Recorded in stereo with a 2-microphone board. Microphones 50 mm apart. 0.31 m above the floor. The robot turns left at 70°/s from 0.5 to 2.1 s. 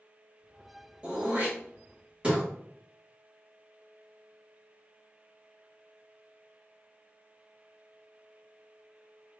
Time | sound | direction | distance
1.0 | throat clearing | 25° right (ahead or behind) | 1.3 m